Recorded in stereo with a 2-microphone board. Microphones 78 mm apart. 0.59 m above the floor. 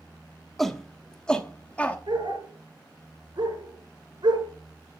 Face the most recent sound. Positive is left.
turn(degrees=-70)  # may be behind; listen again after turning